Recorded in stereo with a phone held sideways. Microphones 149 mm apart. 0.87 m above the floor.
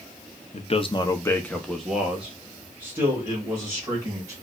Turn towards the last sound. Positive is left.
turn(degrees=-20)  # may be behind; listen again after turning